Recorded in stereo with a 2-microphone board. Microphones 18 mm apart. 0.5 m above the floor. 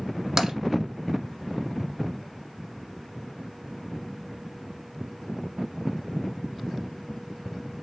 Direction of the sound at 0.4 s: 30° right (ahead or behind).